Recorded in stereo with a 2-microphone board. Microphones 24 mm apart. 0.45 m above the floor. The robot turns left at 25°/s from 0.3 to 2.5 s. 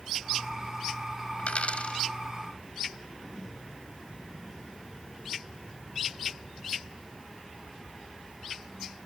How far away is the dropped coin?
About 1.3 m.